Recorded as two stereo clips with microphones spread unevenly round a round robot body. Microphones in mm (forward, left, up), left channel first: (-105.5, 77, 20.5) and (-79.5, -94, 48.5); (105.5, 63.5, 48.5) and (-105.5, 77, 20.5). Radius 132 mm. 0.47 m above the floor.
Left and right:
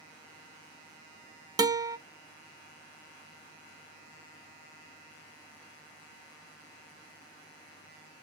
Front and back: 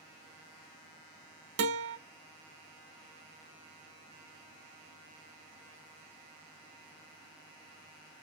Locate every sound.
1.6 s a guitar: 155° right, 0.7 m